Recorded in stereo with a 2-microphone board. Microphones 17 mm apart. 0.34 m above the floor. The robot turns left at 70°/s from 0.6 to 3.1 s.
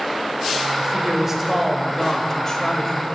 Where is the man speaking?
105° right, 1.1 m; by 3.2 s 90° left, 1.1 m.